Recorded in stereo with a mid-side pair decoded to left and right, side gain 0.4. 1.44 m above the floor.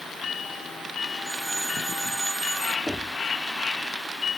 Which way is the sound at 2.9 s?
5° left.